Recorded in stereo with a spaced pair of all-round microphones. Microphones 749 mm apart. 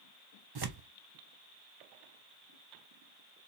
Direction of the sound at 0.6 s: 35° right (ahead or behind).